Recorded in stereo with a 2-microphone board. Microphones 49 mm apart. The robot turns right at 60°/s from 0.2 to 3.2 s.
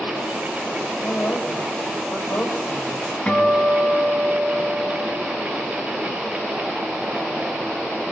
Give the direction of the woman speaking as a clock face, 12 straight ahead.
10 o'clock.